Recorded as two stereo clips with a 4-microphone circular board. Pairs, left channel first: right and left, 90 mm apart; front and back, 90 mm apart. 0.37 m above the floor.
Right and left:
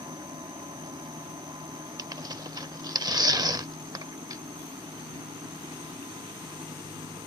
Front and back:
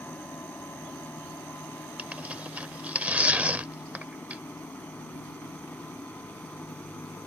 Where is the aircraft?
70° left.